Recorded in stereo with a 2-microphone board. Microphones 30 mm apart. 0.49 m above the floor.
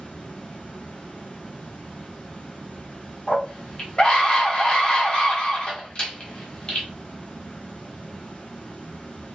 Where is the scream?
35° left (ahead or behind), 1.0 m.